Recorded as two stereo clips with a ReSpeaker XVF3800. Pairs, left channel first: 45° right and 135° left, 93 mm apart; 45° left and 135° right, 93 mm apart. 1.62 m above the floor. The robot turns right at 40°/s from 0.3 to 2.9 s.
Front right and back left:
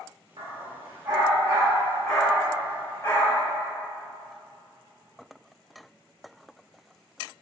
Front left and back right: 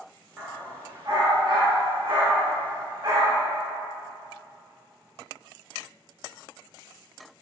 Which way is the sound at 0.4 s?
150° left.